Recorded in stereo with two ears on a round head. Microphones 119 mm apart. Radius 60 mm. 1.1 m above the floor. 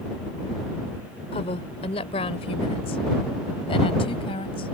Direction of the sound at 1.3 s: 45° left (ahead or behind).